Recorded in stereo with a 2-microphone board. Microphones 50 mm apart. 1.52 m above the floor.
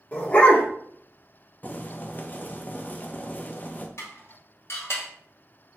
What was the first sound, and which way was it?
A dog barking, 30° left (ahead or behind).